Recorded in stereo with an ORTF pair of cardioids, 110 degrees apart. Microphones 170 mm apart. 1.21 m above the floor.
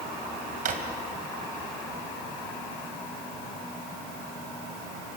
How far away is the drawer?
About 3 m.